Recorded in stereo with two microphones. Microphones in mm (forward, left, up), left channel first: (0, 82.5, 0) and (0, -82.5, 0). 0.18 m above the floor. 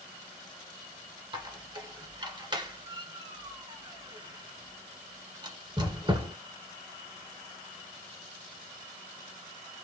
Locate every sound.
1.3 s a squeak: 30° right (ahead or behind), 1.4 m